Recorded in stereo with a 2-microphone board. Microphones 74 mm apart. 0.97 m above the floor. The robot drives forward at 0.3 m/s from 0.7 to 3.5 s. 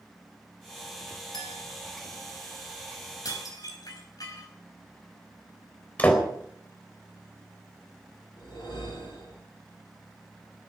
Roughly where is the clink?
Left.